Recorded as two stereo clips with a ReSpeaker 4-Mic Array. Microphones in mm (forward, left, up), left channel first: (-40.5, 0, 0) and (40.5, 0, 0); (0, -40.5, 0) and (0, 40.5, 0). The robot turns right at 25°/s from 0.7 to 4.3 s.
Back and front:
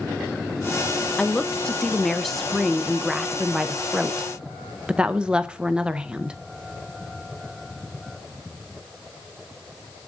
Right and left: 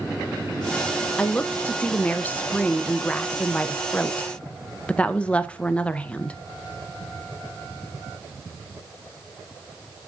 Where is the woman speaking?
130° right, 0.5 m; by 6.4 s 50° right, 0.5 m.